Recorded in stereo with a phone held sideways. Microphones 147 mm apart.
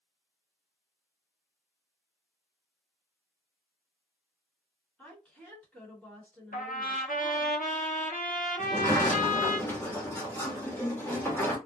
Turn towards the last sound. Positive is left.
turn(degrees=15)  # may be behind; listen again after turning